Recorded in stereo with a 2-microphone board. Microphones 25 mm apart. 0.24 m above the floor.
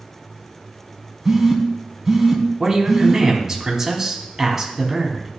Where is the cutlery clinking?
No cutlery clinking in this recording.